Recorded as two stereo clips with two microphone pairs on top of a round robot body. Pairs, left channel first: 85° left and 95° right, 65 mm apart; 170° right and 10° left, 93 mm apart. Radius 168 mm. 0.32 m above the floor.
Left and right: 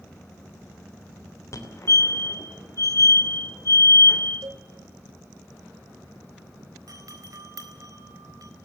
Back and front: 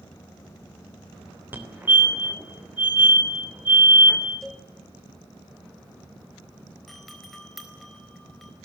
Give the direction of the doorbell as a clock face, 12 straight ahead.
3 o'clock.